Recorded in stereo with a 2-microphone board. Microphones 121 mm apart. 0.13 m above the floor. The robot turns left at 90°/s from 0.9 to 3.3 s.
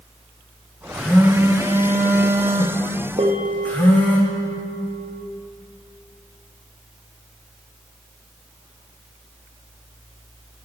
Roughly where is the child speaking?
I don't hear a child speaking.